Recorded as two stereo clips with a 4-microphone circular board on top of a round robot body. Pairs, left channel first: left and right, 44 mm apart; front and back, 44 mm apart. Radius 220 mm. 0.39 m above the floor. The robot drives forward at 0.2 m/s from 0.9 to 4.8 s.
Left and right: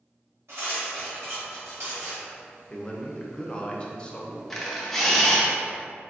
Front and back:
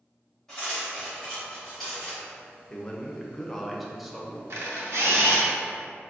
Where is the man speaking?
45° left, 0.8 m; by 4.4 s 115° left, 0.8 m.